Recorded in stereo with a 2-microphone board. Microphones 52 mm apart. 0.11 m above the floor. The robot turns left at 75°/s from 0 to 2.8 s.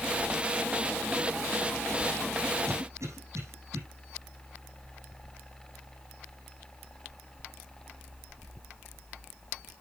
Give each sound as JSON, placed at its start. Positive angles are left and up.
{"t": 2.7, "sound": "a cough", "side_deg": -60, "distance_m": 5.5}